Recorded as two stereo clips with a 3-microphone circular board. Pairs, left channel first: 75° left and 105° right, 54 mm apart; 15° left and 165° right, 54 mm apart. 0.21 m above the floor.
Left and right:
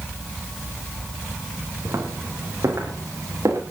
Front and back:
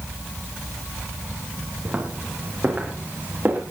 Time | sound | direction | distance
1.9 | footsteps | 105° right | 8 m